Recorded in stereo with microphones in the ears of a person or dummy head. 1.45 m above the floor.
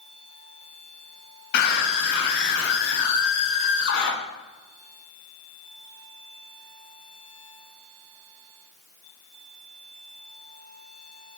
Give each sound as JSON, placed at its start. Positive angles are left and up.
{"t": 1.5, "sound": "a scream", "side_deg": 65, "distance_m": 10.0}